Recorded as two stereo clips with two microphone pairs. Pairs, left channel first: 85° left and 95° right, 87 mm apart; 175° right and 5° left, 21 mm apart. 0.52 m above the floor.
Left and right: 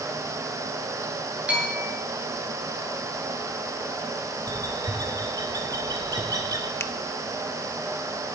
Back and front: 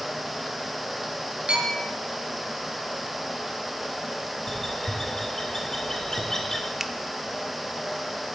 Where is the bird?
115° right, 2 m.